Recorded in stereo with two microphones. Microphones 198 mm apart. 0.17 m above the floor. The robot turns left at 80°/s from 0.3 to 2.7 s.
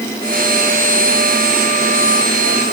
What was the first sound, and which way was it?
Only background noise.